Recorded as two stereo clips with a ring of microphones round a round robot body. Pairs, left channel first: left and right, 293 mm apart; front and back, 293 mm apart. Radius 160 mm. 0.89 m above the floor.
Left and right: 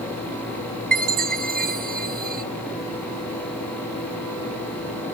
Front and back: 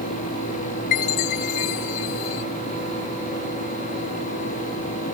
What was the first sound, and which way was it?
A chime, 30° right.